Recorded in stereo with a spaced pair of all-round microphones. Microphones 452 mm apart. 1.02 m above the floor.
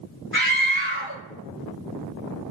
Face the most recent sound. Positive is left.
turn(degrees=-25)  # may be behind; listen again after turning